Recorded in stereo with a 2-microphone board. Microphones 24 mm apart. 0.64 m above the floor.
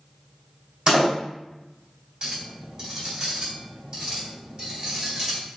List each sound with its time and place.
0.9 s a door slam: 40° right (ahead or behind), 3 m
2.2 s a clink: 40° right (ahead or behind), 3 m